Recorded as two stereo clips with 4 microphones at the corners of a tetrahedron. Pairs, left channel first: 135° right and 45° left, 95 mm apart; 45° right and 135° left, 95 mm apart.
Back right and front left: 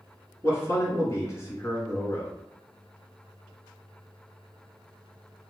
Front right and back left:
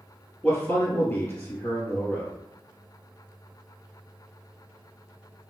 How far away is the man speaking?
About 1.3 m.